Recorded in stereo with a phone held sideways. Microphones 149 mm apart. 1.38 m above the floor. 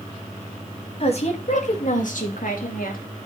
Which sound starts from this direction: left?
A woman speaking, at 1.0 s.